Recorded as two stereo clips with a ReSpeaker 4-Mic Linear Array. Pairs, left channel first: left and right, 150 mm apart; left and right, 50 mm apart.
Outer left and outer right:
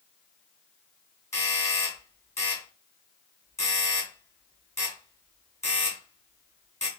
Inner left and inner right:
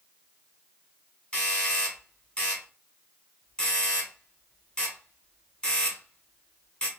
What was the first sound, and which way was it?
A doorbell, 20° left (ahead or behind).